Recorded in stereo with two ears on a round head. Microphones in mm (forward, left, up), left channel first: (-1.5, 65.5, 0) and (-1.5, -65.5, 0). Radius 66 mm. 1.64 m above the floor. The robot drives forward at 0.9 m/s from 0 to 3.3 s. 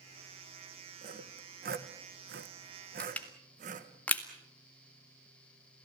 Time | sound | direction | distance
1.0 | sawing | 50° right (ahead or behind) | 1.9 m
3.0 | crushing | 10° left (ahead or behind) | 2 m